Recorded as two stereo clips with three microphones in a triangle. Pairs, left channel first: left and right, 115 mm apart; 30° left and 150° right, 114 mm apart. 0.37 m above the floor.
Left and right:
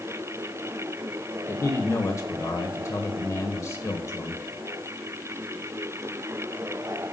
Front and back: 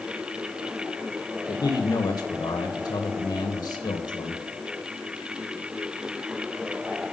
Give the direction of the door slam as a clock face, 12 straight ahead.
No door slam in this recording.